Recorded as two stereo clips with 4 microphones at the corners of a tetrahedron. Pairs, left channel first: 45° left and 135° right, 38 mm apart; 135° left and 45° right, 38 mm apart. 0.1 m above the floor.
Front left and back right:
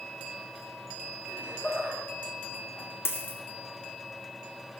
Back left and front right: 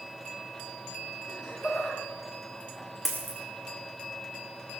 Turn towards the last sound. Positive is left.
turn(degrees=35)